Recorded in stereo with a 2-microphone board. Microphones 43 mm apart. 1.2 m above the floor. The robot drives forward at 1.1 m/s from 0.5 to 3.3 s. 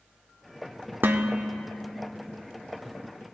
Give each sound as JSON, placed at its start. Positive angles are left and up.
{"t": 1.0, "sound": "dishes clattering", "side_deg": -55, "distance_m": 0.6}